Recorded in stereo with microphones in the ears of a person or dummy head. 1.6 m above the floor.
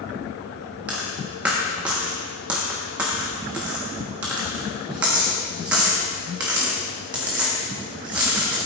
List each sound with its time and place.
0.9 s a dropped coin: 15° right (ahead or behind), 1.2 m